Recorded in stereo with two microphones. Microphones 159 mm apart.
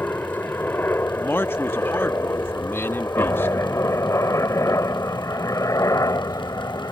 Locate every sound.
0.0 s a helicopter: 15° left (ahead or behind); by 6.9 s 25° left (ahead or behind)
1.1 s a man speaking: 15° left (ahead or behind)